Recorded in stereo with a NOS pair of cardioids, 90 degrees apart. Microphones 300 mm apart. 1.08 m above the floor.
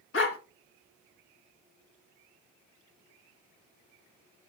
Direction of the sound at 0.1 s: 45° left.